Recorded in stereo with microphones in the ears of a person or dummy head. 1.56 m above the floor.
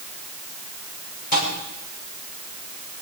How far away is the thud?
About 7.5 m.